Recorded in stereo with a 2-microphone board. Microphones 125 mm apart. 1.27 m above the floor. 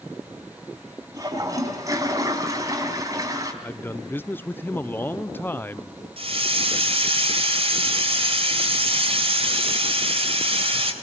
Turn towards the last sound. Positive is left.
turn(degrees=-50)  # may be behind; listen again after turning